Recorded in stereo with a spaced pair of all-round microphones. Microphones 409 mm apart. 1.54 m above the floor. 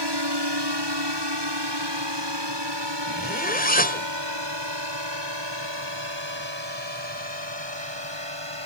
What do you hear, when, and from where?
0.0 s a drone: 70° right (ahead or behind); by 8.7 s 80° right
3.1 s a zipper: 20° left (ahead or behind)